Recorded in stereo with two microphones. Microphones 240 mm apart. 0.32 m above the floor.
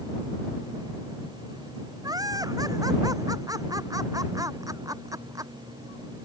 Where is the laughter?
15° right (ahead or behind).